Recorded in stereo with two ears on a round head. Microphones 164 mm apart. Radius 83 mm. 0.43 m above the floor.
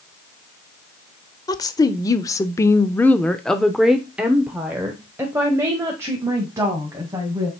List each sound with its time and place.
1.5 s a woman speaking: 20° left (ahead or behind), 1.2 m; by 7.5 s 15° right (ahead or behind), 2.5 m